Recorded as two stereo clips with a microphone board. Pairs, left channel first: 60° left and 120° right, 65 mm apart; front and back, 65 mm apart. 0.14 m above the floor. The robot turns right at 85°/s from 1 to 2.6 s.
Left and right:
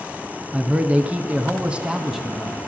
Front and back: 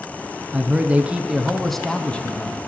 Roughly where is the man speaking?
Behind right.